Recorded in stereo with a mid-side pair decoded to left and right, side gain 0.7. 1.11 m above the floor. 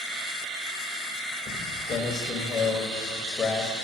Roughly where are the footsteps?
Ahead left.